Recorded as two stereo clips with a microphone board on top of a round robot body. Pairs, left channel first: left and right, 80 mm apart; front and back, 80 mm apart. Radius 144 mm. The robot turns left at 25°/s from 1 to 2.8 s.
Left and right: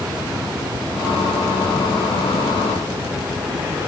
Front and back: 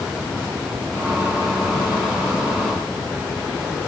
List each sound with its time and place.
Only background noise.